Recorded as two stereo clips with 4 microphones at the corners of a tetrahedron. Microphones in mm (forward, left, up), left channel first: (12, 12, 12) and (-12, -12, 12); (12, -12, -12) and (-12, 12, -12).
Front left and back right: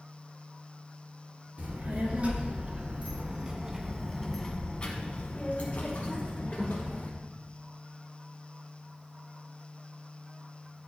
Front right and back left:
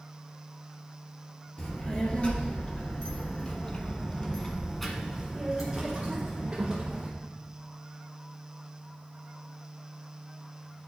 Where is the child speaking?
95° right, 2.0 m; by 7.1 s 65° left, 2.0 m.